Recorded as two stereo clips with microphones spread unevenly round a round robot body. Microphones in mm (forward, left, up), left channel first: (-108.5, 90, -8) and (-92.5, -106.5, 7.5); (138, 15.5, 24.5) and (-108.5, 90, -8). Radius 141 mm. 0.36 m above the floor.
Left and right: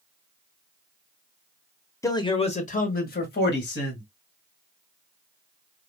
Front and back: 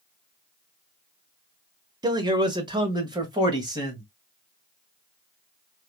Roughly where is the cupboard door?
I don't hear a cupboard door.